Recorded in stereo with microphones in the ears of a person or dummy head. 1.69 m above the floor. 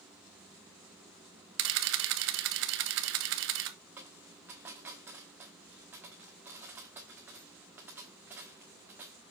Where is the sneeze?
No sneeze in this recording.